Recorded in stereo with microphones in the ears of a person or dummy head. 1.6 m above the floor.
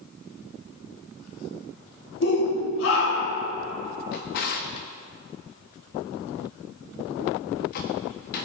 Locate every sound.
2.2 s a shout: 65° left (ahead or behind), 3 m; by 3.5 s 75° left (ahead or behind), 3 m
4.1 s a drawer: 50° left (ahead or behind), 1.4 m